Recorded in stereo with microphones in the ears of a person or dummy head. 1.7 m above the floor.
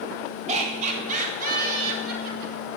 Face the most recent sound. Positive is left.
turn(degrees=-65)  # may be behind; listen again after turning